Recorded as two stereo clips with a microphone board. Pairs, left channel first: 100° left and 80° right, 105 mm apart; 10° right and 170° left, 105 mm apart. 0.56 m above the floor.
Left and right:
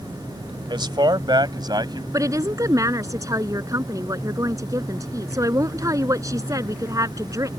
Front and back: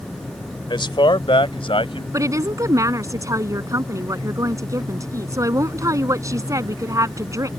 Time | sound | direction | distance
0.7 | a man speaking | 45° right | ?
2.1 | a woman speaking | 135° right | ?